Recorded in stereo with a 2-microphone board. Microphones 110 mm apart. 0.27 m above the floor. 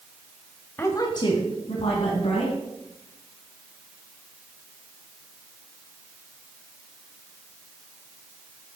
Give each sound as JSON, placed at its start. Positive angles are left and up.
{"t": 0.8, "sound": "a woman speaking", "side_deg": 20, "distance_m": 1.2}